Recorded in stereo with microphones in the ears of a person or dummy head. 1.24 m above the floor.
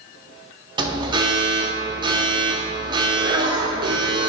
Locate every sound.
0.8 s an alarm: 25° right (ahead or behind), 0.5 m